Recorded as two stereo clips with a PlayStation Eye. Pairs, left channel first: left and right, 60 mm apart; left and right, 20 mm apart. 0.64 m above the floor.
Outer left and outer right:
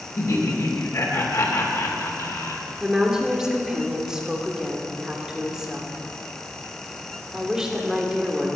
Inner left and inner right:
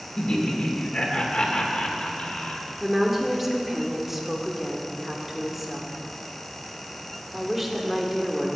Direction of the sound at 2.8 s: 10° right (ahead or behind).